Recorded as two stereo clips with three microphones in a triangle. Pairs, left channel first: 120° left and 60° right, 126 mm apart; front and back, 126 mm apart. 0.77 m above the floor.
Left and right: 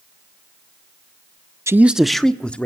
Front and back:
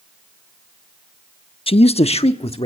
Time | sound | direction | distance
1.7 | a man speaking | straight ahead | 0.6 m